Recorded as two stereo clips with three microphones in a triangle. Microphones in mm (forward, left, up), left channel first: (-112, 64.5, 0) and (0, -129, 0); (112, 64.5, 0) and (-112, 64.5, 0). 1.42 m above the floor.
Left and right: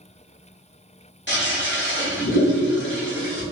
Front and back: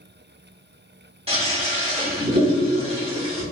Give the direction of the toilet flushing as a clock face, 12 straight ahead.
8 o'clock.